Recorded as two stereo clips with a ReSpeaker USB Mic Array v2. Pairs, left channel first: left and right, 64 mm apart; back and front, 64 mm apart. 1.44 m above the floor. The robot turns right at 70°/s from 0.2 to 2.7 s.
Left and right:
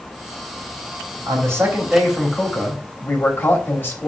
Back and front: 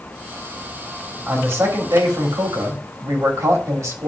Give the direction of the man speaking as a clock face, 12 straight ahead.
2 o'clock.